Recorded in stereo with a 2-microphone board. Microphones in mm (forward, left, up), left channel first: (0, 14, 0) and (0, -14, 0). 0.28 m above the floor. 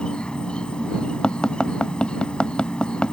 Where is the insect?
40° left (ahead or behind).